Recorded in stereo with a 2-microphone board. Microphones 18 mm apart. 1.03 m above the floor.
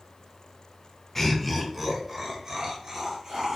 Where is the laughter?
25° left (ahead or behind), 0.7 m; by 3.6 s 35° right (ahead or behind), 1.3 m.